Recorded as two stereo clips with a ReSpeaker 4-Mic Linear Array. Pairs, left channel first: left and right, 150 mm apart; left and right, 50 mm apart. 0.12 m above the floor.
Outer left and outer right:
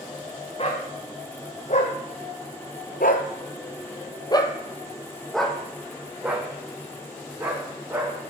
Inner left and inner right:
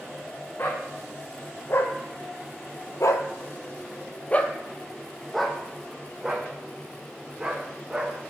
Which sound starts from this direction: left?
A dog barking, at 0.6 s.